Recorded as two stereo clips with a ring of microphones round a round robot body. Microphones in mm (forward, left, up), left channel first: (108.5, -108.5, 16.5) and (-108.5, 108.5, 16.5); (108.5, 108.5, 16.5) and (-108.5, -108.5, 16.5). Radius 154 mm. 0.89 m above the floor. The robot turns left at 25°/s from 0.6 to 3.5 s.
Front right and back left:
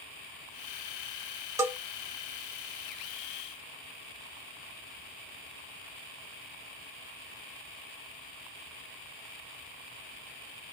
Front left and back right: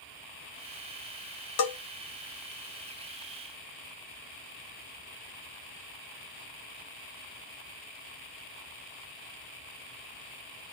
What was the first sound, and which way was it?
A bell, 55° left.